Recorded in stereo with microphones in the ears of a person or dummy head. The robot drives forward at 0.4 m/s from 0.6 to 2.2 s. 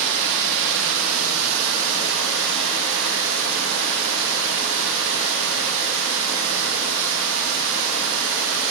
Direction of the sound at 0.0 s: 70° right (ahead or behind).